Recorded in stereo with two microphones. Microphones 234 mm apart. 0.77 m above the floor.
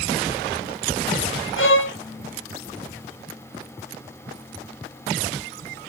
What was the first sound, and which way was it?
A violin, 60° left (ahead or behind).